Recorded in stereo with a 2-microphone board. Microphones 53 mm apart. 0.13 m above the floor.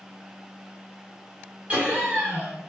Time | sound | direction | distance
1.7 | laughter | 25° right (ahead or behind) | 1.9 m